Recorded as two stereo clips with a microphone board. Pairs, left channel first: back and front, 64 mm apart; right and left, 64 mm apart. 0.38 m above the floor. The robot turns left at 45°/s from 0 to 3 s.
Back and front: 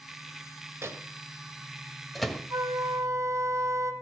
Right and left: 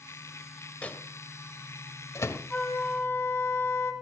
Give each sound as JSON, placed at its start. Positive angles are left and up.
{"t": 0.8, "sound": "a microwave", "azimuth_deg": -30, "distance_m": 1.5}
{"t": 2.5, "sound": "a flute", "azimuth_deg": -15, "distance_m": 2.5}